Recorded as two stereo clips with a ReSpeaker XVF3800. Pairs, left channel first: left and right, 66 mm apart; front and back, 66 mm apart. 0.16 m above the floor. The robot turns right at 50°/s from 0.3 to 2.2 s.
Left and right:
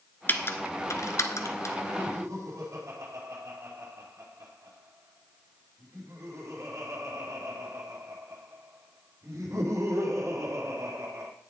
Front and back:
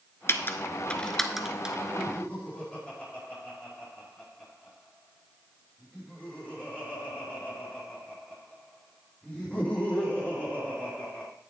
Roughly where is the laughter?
Right.